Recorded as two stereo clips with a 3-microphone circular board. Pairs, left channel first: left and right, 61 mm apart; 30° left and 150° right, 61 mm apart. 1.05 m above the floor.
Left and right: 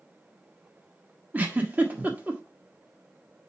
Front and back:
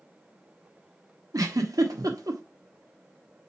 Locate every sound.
1.3 s a giggle: 155° right, 1.4 m